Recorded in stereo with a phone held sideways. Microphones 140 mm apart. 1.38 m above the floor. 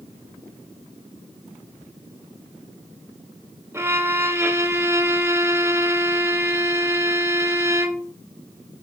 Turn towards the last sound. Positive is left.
turn(degrees=-20)  # may be behind; listen again after turning